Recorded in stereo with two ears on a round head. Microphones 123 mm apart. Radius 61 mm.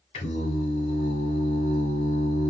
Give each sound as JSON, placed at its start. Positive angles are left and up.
{"t": 0.1, "sound": "singing", "side_deg": 50, "distance_m": 2.0}